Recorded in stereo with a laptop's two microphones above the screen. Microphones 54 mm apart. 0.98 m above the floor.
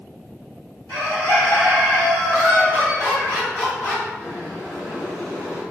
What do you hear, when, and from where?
0.9 s a bird: 55° left (ahead or behind), 1.8 m
2.3 s laughter: 35° left (ahead or behind), 1.3 m
4.2 s boiling: 60° left (ahead or behind), 1.8 m